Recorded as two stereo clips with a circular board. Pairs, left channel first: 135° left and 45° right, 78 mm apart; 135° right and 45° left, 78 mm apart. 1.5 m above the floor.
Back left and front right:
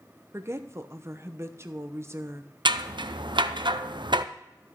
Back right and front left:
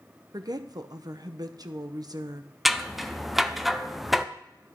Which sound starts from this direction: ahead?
A woman speaking, at 0.3 s.